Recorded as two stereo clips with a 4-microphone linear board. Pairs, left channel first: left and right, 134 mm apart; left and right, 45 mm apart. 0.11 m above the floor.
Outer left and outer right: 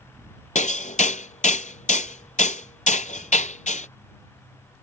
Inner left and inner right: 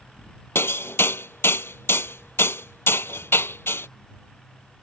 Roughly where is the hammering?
Left.